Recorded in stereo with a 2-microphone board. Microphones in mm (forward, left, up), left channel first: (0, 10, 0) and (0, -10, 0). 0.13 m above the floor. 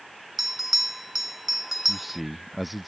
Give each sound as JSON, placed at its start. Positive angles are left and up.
{"t": 0.4, "sound": "a bell", "side_deg": -15}
{"t": 1.9, "sound": "a man speaking", "side_deg": 0}